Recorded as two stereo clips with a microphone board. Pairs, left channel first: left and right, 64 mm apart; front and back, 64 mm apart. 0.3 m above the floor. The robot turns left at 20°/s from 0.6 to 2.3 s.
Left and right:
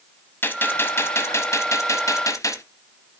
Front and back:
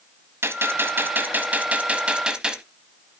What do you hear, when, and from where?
0.4 s a gunshot: 140° left, 0.9 m; by 2.6 s 105° left, 0.9 m